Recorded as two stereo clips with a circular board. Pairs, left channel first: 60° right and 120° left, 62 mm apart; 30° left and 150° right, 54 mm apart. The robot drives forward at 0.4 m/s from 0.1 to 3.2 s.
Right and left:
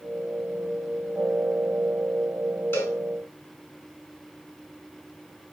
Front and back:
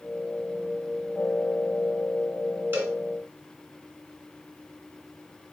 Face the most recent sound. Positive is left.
turn(degrees=-110)